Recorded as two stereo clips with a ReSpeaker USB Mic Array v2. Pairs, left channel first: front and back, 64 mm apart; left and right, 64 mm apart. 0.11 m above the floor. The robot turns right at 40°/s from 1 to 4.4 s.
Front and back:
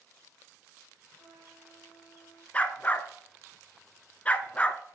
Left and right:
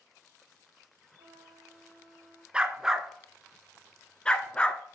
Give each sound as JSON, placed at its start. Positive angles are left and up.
{"t": 1.2, "sound": "a trumpet", "azimuth_deg": -100, "distance_m": 5.0}
{"t": 2.5, "sound": "a dog barking", "azimuth_deg": -35, "distance_m": 0.6}